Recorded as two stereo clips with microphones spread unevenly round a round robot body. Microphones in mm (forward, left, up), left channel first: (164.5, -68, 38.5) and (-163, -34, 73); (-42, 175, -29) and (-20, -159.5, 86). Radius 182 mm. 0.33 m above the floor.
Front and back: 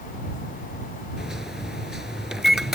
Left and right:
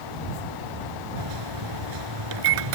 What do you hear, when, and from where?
1.2 s a microwave: 95° right